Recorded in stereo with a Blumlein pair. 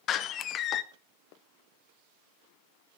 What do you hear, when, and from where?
0.1 s a door slam: 30° left, 0.5 m